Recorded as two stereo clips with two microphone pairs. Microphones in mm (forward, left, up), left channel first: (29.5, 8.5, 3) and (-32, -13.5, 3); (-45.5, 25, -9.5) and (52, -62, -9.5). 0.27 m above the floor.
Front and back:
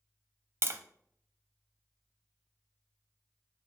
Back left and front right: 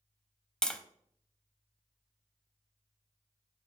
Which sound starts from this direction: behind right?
Tapping, at 0.6 s.